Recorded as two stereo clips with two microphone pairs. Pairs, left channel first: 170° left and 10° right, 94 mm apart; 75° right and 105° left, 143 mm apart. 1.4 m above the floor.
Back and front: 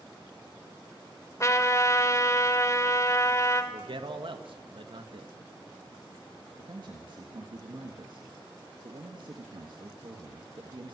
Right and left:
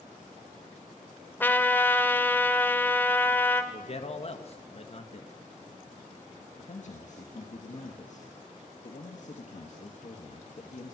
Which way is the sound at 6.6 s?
45° right.